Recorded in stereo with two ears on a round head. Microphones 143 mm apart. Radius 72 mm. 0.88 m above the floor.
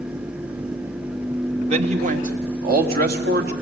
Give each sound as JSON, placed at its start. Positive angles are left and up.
{"t": 1.7, "sound": "a man speaking", "side_deg": -40, "distance_m": 1.8}